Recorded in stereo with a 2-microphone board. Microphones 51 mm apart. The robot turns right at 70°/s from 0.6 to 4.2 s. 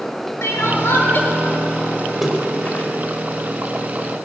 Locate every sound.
0.4 s crying: 95° left, 1.8 m; by 1.3 s 140° left, 1.8 m
2.2 s a splash: 5° right (ahead or behind), 2.5 m; by 2.9 s 35° left (ahead or behind), 2.5 m